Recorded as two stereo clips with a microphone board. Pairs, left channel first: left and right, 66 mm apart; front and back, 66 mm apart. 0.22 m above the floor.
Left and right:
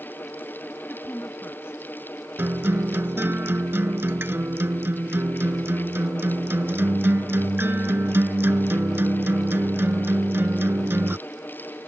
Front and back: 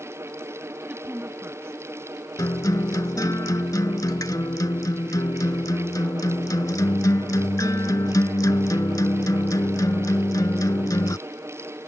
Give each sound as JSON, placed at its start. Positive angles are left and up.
{"t": 0.9, "sound": "a woman speaking", "azimuth_deg": 120}
{"t": 2.4, "sound": "a guitar", "azimuth_deg": -30}